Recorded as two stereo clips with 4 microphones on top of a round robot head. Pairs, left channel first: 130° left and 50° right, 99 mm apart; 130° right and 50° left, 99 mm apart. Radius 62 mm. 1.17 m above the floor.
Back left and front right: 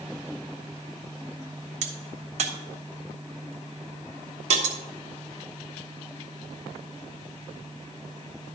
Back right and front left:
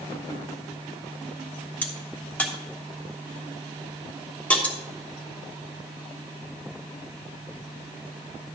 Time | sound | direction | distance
1.8 | a crack | 55° right | 1.2 m